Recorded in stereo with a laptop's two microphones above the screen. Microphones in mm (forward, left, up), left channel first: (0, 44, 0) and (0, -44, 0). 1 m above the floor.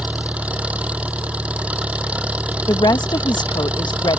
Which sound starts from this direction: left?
A woman speaking, at 2.7 s.